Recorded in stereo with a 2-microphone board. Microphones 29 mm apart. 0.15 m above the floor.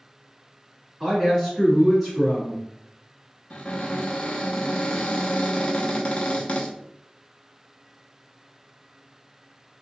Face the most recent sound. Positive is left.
turn(degrees=40)  # may be behind; listen again after turning